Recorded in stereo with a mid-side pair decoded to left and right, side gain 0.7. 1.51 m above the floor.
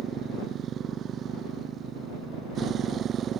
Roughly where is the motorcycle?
Ahead right.